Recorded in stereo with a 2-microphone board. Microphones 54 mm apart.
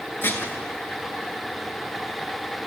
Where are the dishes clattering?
45° left (ahead or behind), 2.5 m.